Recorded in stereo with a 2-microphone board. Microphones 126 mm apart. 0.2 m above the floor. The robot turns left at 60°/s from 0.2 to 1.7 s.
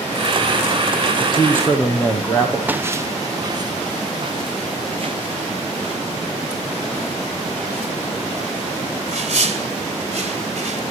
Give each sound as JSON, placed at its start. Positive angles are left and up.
{"t": 1.2, "sound": "a man speaking", "azimuth_deg": 45, "distance_m": 7.0}
{"t": 2.7, "sound": "footsteps", "side_deg": -15, "distance_m": 1.2}